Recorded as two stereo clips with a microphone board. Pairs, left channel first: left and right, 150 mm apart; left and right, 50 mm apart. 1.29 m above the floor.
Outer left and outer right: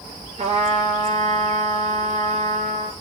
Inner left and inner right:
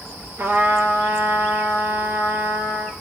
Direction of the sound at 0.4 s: 55° right (ahead or behind).